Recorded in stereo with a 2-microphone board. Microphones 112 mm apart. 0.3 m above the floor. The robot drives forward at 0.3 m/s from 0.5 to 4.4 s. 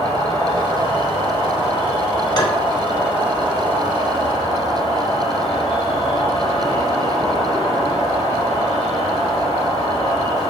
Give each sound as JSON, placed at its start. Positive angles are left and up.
{"t": 0.0, "sound": "an insect", "side_deg": -75, "distance_m": 2.5}
{"t": 2.4, "sound": "tapping", "side_deg": 40, "distance_m": 1.4}